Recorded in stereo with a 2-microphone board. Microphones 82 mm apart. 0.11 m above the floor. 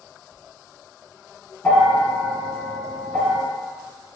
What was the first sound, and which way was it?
A bell, 20° left (ahead or behind).